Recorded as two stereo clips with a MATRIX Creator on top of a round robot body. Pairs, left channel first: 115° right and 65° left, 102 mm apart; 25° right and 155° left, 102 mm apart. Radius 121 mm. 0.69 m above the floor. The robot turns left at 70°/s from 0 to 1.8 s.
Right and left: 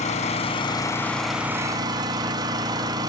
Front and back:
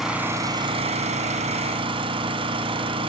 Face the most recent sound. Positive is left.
turn(degrees=120)